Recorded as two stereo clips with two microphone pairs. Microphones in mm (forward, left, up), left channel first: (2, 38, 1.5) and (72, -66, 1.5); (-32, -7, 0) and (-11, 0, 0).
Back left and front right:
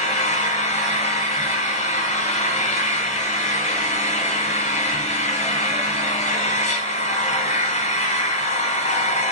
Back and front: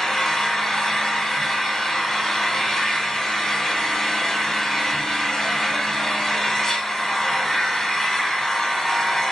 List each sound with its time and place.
0.0 s an engine running: 125° left, 1.5 m